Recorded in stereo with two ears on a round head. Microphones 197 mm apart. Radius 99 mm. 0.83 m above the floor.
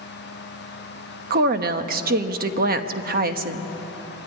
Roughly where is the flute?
No flute in this recording.